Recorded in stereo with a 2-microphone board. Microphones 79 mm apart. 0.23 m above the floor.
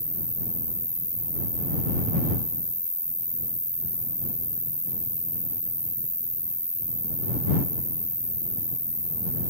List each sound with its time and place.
0.0 s an insect: 25° left (ahead or behind)